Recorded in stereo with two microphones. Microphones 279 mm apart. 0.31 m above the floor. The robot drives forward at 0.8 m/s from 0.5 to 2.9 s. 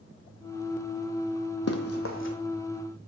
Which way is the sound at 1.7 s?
65° left (ahead or behind).